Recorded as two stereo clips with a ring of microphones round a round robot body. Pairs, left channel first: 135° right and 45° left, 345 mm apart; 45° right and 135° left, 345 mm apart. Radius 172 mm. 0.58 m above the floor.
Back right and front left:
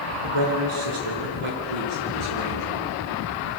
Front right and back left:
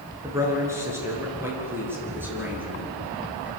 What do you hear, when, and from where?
0.2 s a man speaking: 55° left, 8 m; by 3.5 s 50° left, 10 m